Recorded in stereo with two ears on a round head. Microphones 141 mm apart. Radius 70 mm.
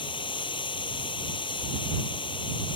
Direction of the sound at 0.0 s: 30° left (ahead or behind).